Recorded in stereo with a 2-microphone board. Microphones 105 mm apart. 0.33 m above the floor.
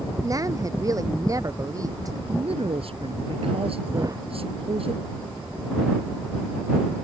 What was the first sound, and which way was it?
A woman speaking, 35° right (ahead or behind).